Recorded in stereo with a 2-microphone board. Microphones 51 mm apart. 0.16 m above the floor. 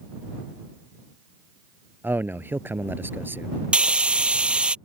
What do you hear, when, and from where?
2.0 s a man speaking: 45° right (ahead or behind)
3.7 s frying: 20° right (ahead or behind)